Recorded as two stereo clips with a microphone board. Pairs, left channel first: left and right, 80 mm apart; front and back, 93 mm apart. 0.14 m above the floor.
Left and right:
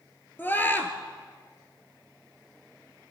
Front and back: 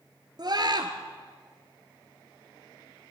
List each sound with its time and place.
0.4 s a scream: 150° left, 2.0 m